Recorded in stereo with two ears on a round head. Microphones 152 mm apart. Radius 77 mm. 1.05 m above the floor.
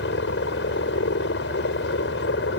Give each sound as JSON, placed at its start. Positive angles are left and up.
{"t": 0.0, "sound": "a helicopter", "side_deg": 70}